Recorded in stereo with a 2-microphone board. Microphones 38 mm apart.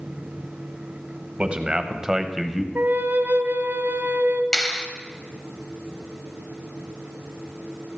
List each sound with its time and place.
1.4 s a man speaking: 30° right (ahead or behind), 1.1 m; by 2.6 s 5° left (ahead or behind), 1.0 m
2.8 s a flute: 65° right (ahead or behind), 1.1 m
4.5 s a clap: 15° left (ahead or behind), 1.1 m